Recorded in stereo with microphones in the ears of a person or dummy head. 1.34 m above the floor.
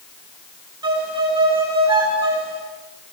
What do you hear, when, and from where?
0.8 s a violin: 15° right (ahead or behind), 4 m